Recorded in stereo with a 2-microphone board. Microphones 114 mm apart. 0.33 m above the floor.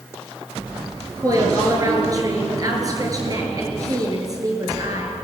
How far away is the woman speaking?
About 6 m.